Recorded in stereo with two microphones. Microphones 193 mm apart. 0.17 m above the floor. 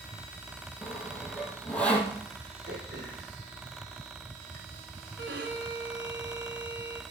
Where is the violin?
70° right (ahead or behind), 2 m.